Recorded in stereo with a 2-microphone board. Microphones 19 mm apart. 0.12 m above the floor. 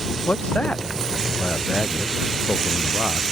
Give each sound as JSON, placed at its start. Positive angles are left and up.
{"t": 0.3, "sound": "a man speaking", "side_deg": 85}